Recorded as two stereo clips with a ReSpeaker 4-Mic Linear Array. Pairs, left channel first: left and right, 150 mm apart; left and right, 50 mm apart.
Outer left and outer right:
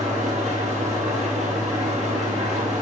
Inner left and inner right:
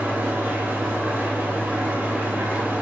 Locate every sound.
0.0 s an engine running: 50° right (ahead or behind), 2.5 m